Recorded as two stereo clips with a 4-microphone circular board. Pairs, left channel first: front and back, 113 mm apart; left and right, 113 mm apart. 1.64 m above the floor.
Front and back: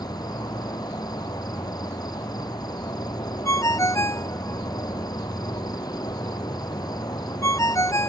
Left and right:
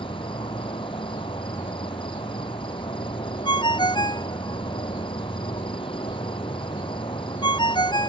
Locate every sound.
0.0 s an insect: 50° left
3.5 s a ringtone: 55° left